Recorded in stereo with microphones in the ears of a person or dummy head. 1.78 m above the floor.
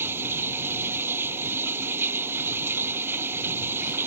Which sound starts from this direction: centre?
Running water, at 0.0 s.